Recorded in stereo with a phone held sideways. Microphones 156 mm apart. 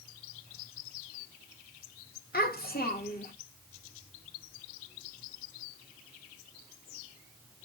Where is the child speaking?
70° left (ahead or behind), 1.3 m.